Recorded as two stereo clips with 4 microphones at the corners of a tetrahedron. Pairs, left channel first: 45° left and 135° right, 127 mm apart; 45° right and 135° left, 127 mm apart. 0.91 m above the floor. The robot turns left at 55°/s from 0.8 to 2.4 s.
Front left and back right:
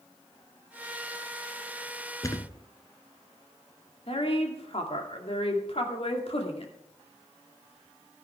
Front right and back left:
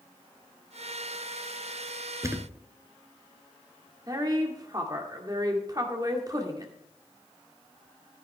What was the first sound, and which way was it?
A thud, 85° left.